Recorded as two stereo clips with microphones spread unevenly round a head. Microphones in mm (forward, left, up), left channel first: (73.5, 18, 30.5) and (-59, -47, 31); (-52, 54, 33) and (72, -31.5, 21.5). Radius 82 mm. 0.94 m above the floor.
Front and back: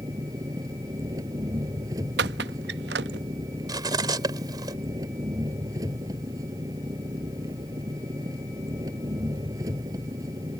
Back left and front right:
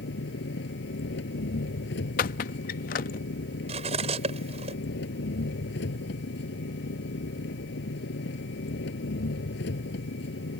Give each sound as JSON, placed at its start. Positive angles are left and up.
{"t": 0.0, "sound": "an engine running", "azimuth_deg": 135}
{"t": 2.2, "sound": "a squeak", "azimuth_deg": -175}
{"t": 3.7, "sound": "cutlery clinking", "azimuth_deg": -90}